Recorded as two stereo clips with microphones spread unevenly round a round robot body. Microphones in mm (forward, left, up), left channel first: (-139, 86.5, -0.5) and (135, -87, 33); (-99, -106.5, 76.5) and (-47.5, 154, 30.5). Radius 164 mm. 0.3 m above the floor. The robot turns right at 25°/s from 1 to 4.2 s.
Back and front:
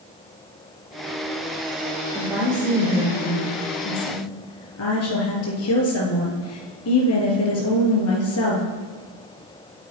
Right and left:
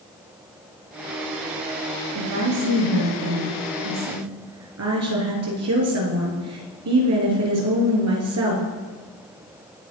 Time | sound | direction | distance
2.1 | a woman speaking | 50° left | 5 m